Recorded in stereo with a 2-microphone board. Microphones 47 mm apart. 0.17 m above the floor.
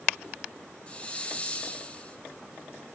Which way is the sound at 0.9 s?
25° left (ahead or behind).